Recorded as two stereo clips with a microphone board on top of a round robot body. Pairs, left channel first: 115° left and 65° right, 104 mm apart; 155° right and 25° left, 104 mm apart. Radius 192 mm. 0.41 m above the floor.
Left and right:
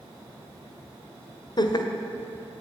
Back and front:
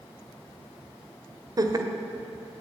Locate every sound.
1.6 s laughter: 70° left, 1.9 m